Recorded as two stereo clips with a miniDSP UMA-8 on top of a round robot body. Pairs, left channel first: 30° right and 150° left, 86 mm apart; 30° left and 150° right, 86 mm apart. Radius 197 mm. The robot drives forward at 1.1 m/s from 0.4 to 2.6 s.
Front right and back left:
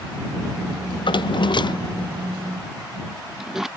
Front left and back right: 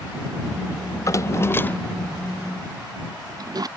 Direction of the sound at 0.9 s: 20° right.